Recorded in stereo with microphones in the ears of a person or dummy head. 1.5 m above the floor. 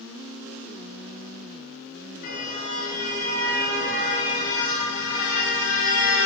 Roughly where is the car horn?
Left.